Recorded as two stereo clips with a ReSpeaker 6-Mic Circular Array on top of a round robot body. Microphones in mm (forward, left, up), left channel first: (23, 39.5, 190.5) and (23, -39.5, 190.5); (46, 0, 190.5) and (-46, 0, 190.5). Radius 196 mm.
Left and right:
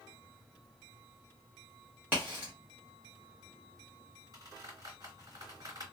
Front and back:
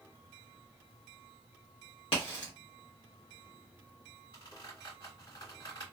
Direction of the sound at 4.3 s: 45° right.